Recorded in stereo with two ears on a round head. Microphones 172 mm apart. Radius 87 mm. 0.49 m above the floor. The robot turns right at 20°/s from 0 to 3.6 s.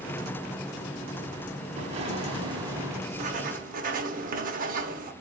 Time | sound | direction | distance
1.8 | an explosion | 35° right (ahead or behind) | 1.1 m
3.1 | writing | 40° right (ahead or behind) | 0.9 m